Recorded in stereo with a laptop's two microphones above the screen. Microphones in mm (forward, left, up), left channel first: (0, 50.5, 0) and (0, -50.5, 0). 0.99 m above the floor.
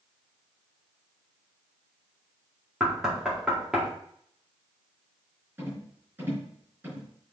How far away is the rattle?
About 4.5 m.